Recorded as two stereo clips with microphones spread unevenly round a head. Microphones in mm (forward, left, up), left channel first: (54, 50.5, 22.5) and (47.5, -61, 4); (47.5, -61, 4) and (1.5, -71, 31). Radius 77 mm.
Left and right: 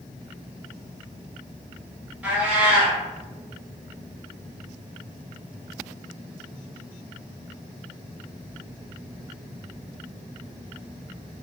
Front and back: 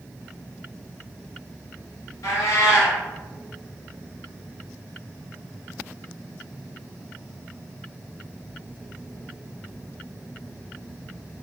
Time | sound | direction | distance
2.2 | a cat meowing | 5° right | 1.7 m